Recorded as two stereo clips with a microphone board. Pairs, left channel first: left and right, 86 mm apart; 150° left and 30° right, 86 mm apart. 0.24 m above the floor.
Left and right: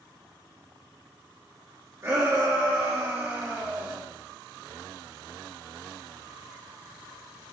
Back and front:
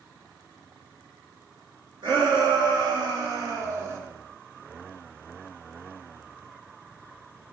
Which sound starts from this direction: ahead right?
A shout, at 2.0 s.